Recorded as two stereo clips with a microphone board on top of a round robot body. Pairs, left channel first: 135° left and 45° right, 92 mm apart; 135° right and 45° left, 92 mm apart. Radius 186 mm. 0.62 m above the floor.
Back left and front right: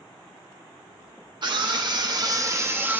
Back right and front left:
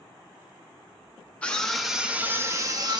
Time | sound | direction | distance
1.4 | a scream | 60° right | 1.4 m